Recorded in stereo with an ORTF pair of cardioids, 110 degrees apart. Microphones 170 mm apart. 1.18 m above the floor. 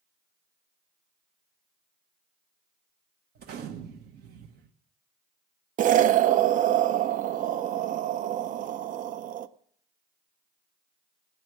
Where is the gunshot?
70° right, 1.3 m.